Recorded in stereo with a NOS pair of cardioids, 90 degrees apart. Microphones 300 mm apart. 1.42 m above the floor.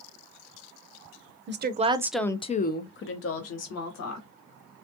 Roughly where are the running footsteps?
I don't hear running footsteps.